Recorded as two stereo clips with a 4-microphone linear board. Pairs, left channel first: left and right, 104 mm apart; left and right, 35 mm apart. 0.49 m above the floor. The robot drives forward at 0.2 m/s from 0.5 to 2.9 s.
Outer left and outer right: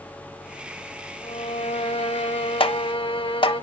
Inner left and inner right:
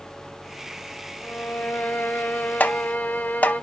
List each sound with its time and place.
1.2 s a violin: 80° left, 0.9 m; by 3.6 s 70° left (ahead or behind), 1.0 m
2.6 s tapping: 60° left (ahead or behind), 0.7 m; by 3.5 s 55° left (ahead or behind), 0.7 m